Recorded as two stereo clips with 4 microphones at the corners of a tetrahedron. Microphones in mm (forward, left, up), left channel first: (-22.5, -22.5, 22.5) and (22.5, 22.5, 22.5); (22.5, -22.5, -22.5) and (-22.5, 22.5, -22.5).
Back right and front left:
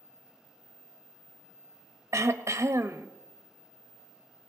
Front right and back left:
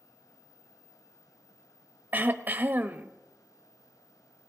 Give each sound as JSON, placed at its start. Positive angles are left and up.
{"t": 2.1, "sound": "throat clearing", "azimuth_deg": 75, "distance_m": 0.7}